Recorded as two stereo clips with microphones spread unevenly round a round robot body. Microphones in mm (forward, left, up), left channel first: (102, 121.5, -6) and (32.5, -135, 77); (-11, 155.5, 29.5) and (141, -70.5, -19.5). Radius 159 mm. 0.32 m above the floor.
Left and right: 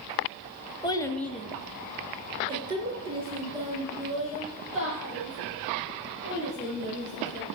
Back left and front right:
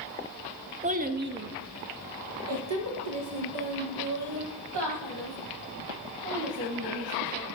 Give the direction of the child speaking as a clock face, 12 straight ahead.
12 o'clock.